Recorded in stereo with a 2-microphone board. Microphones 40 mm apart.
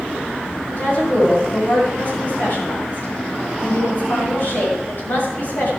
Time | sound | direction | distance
0.7 | a woman speaking | 55° left (ahead or behind) | 7 m